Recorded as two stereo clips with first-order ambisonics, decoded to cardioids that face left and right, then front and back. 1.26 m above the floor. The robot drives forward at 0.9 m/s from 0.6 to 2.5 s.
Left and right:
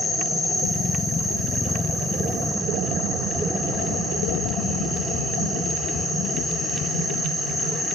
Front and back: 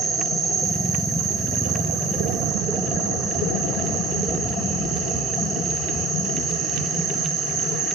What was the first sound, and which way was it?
An insect, 165° left.